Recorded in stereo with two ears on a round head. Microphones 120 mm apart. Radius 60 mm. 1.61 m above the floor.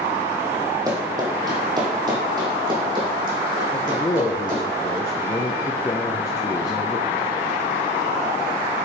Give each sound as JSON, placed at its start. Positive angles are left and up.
{"t": 0.9, "sound": "running footsteps", "side_deg": -25, "distance_m": 2.5}
{"t": 3.7, "sound": "a man speaking", "side_deg": 25, "distance_m": 0.7}